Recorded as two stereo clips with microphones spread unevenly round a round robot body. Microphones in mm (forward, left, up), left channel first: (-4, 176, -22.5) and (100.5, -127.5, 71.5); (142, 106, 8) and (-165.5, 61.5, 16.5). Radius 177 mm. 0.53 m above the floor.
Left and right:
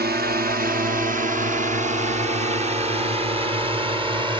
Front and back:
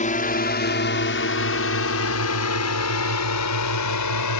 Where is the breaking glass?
I don't hear breaking glass.